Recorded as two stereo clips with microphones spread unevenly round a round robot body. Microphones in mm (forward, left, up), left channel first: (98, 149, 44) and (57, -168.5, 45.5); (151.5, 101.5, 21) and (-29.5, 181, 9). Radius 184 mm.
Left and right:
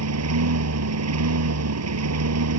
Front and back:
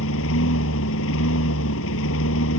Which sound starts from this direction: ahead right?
A lawn mower, at 0.0 s.